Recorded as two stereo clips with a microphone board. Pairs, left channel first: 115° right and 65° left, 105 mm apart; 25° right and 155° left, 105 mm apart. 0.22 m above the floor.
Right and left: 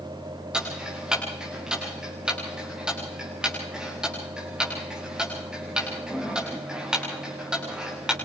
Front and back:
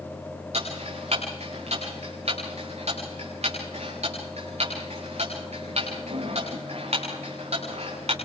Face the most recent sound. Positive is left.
turn(degrees=150)